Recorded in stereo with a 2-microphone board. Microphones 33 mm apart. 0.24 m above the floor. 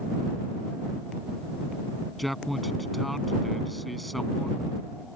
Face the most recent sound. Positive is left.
turn(degrees=0)  # may be behind; listen again after turning